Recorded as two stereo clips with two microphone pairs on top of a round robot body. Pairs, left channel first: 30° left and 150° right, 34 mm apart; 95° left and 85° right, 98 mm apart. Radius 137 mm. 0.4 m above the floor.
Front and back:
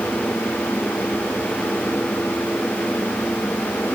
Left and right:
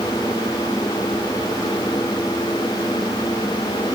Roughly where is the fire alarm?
I don't hear a fire alarm.